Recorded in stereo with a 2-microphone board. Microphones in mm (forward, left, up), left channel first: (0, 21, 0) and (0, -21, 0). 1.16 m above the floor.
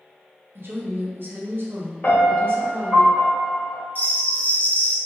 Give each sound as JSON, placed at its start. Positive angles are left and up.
{"t": 0.6, "sound": "a woman speaking", "side_deg": -60, "distance_m": 0.6}
{"t": 2.0, "sound": "a piano", "side_deg": 45, "distance_m": 1.3}
{"t": 4.0, "sound": "a bell", "side_deg": 40, "distance_m": 0.6}